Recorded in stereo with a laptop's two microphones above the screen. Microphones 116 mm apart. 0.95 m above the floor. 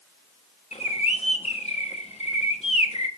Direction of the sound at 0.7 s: 65° left (ahead or behind).